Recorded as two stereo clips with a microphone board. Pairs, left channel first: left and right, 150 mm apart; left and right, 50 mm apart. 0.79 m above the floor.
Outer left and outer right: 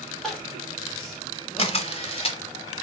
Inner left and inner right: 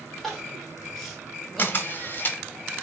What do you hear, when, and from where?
0.2 s crying: centre (ahead or behind), 1.3 m
1.6 s a camera shutter: 40° left (ahead or behind), 0.8 m